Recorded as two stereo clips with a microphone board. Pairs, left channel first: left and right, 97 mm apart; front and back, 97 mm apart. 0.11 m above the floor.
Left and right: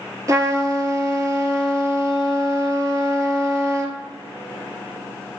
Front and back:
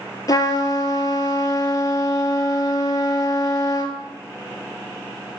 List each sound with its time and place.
0.3 s a trumpet: 40° right, 0.6 m